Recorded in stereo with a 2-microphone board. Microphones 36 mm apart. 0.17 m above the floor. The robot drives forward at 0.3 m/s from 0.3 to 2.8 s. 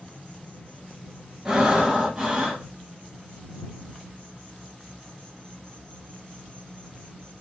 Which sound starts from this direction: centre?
Breathing, at 1.4 s.